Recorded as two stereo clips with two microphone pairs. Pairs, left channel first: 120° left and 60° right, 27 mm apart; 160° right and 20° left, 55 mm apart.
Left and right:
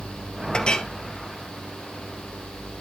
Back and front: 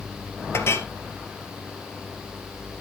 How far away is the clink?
About 1.9 m.